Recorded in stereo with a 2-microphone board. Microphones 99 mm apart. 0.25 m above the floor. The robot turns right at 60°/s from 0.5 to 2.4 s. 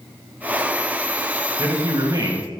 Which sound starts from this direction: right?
A man speaking, at 1.6 s.